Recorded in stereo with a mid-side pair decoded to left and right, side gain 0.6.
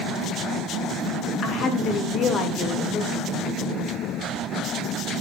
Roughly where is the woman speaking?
Ahead left.